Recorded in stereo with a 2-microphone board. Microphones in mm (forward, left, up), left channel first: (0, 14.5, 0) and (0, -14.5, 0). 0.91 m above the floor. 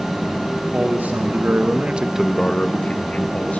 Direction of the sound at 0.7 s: 75° right (ahead or behind).